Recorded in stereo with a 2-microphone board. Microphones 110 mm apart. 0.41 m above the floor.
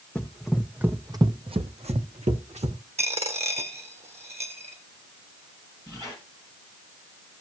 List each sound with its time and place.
0.1 s running footsteps: 10° left (ahead or behind), 1.2 m; by 2.8 s 70° right (ahead or behind), 1.6 m
3.0 s a dropped coin: 70° right (ahead or behind), 1.4 m
5.9 s a squeak: 40° right (ahead or behind), 7.5 m